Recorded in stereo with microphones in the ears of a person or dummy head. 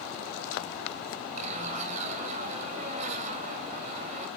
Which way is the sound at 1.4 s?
40° right (ahead or behind).